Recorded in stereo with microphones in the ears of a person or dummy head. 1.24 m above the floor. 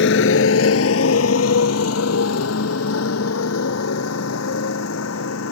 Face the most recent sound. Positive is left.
turn(degrees=85)